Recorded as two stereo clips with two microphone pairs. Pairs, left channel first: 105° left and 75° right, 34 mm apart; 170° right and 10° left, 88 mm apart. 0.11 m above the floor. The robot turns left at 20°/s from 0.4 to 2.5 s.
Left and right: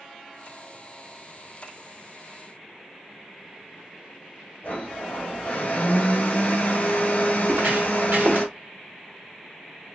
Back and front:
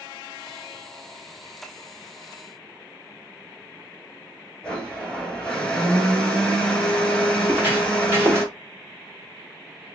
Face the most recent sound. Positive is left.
turn(degrees=-45)